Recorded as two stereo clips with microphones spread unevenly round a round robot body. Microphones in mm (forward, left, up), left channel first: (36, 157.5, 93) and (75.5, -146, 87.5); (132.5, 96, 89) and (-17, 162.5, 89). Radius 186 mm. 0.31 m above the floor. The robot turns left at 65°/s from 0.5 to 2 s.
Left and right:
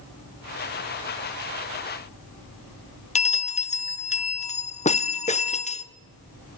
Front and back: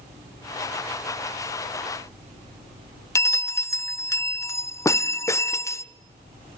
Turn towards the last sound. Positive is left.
turn(degrees=40)